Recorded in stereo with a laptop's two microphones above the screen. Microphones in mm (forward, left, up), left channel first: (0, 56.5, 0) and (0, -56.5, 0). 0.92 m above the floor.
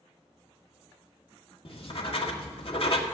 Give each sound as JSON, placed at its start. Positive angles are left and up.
{"t": 1.6, "sound": "writing", "side_deg": 55, "distance_m": 1.6}